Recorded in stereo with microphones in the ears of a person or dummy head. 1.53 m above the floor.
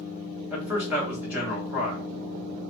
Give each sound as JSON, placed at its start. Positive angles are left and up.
{"t": 0.5, "sound": "a man speaking", "side_deg": -5, "distance_m": 1.0}